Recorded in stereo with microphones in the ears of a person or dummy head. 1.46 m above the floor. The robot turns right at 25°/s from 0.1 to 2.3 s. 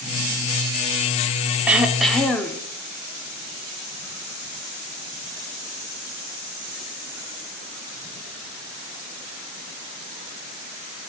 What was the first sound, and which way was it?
Throat clearing, 10° right (ahead or behind).